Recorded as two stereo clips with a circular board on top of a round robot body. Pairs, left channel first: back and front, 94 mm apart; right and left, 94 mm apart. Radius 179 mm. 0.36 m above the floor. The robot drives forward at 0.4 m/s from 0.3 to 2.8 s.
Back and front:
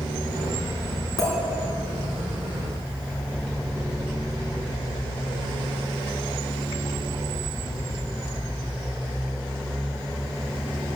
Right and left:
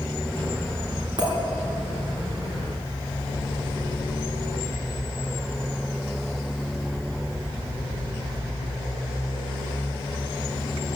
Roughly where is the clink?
Behind left.